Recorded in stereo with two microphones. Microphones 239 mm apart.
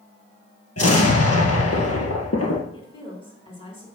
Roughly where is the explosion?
Left.